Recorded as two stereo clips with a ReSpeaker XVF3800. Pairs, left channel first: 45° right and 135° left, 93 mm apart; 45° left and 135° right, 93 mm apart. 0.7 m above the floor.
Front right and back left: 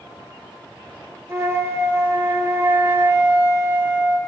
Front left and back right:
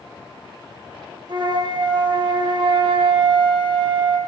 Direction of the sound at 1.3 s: 165° right.